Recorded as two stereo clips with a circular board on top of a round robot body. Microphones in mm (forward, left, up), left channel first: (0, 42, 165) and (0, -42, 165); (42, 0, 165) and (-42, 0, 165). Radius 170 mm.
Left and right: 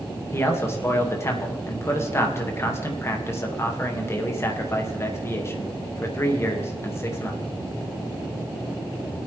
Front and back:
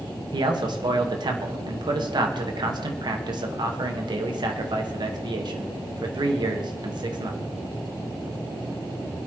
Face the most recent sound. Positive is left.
turn(degrees=150)